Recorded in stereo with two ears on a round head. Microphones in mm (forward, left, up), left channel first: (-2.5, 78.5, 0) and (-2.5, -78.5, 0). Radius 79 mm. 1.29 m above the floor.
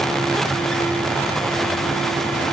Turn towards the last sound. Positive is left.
No sound to turn to.